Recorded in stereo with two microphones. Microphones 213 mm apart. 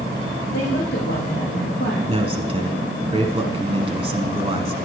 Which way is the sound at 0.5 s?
55° left (ahead or behind).